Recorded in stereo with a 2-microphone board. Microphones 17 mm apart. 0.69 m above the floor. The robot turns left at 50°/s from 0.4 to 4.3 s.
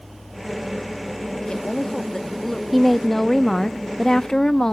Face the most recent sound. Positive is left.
turn(degrees=30)  # may be behind; listen again after turning